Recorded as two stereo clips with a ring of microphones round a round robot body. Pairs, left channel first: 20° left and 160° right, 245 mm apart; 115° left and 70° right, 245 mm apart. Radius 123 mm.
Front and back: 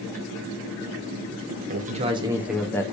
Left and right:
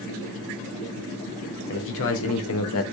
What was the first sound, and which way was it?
A man speaking, 150° left.